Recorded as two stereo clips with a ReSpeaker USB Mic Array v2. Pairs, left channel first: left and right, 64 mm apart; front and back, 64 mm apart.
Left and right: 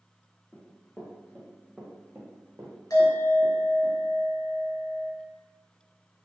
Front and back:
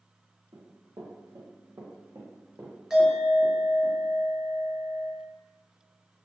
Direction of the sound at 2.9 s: 100° left.